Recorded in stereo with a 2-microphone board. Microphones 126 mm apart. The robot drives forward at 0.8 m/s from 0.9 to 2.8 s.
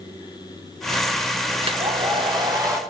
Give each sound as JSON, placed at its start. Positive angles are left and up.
{"t": 1.6, "sound": "a hair dryer", "side_deg": -45, "distance_m": 0.8}